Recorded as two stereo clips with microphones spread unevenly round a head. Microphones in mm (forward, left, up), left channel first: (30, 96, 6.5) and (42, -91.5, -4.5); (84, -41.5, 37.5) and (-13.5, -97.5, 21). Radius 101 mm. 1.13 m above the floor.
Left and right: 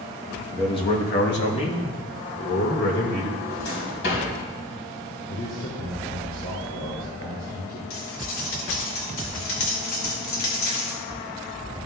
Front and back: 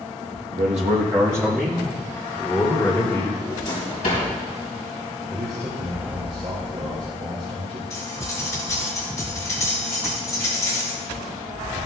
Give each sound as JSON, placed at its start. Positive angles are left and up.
{"t": 0.5, "sound": "a man speaking", "azimuth_deg": 180, "distance_m": 0.9}
{"t": 3.4, "sound": "a drawer", "azimuth_deg": 75, "distance_m": 3.5}
{"t": 5.3, "sound": "a man speaking", "azimuth_deg": 145, "distance_m": 2.0}
{"t": 7.9, "sound": "cutlery clinking", "azimuth_deg": 90, "distance_m": 2.0}